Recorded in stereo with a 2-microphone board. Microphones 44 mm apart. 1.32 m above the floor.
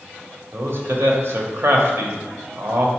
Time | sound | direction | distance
0.5 | a man speaking | 60° right (ahead or behind) | 0.8 m